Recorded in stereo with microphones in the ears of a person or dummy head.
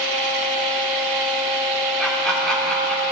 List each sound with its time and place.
0.0 s a fan: 60° right (ahead or behind), 2.5 m
2.0 s laughter: centre (ahead or behind), 3 m